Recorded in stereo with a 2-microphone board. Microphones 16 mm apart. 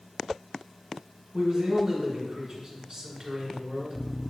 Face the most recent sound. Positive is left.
turn(degrees=-45)  # may be behind; listen again after turning